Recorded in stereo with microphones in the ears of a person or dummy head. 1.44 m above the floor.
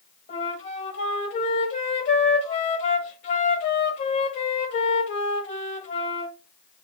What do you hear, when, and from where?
0.3 s a flute: 45° left (ahead or behind), 1.1 m